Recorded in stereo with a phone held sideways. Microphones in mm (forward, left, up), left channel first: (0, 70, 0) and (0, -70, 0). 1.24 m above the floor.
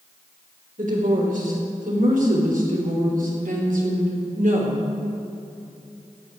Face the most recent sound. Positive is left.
turn(degrees=-70)  # may be behind; listen again after turning